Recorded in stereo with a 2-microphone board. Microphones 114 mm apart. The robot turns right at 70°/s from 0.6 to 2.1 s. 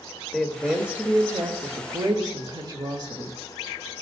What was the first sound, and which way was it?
A woman speaking, straight behind.